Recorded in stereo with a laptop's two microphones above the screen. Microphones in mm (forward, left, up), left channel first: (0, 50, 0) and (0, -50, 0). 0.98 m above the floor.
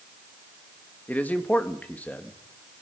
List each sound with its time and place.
1.1 s a man speaking: 15° left (ahead or behind), 1.4 m